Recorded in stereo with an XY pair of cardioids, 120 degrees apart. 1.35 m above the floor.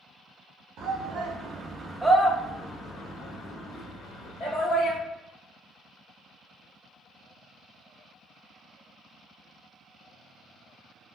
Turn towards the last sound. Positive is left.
turn(degrees=60)